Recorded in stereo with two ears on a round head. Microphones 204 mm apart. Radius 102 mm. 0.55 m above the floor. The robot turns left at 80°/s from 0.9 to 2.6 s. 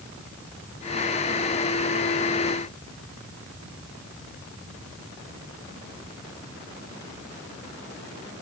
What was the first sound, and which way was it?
Only background noise.